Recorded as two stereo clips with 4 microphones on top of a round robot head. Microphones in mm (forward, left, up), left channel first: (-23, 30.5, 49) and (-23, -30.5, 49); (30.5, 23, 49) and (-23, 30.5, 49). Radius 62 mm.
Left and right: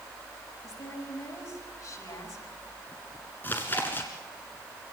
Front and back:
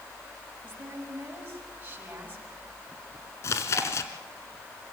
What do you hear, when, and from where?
0.6 s a woman speaking: 110° left, 6.5 m
3.4 s chewing: 20° left, 1.4 m